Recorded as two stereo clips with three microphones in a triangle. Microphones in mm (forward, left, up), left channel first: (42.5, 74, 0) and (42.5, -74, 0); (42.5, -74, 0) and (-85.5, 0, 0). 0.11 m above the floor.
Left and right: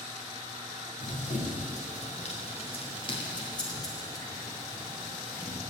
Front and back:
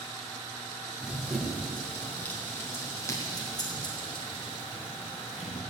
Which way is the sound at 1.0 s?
65° left.